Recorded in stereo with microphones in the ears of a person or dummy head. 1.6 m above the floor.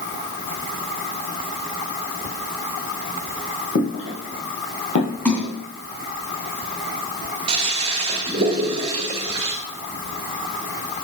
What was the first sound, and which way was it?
Footsteps, 65° left (ahead or behind).